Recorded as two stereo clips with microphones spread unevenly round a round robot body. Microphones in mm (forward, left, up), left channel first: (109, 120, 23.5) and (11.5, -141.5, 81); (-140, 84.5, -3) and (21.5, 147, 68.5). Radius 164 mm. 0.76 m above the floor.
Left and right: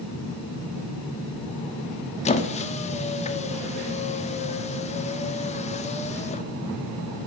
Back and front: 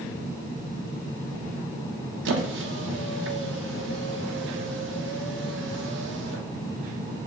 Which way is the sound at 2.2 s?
Straight ahead.